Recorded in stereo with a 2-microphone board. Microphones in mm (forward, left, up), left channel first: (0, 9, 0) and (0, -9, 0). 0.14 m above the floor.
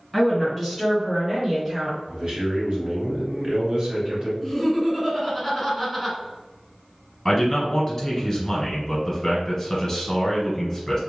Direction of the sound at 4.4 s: 10° left (ahead or behind).